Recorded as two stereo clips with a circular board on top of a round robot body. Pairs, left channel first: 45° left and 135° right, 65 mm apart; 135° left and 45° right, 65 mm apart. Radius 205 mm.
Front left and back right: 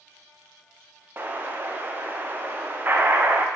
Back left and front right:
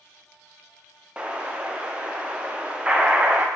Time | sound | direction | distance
1.2 | an explosion | 105° right | 1.4 m